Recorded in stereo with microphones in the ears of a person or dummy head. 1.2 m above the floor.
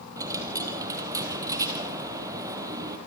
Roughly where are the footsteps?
I don't hear footsteps.